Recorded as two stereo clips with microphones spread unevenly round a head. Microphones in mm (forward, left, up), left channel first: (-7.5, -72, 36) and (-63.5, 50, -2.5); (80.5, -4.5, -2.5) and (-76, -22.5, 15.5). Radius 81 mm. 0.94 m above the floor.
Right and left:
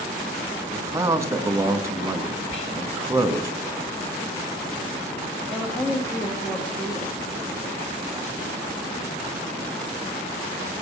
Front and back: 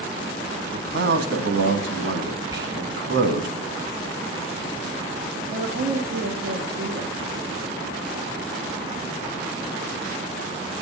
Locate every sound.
0.7 s a man speaking: 170° left, 1.6 m
2.5 s whispering: 105° right, 8.5 m
5.5 s a woman speaking: 150° right, 1.6 m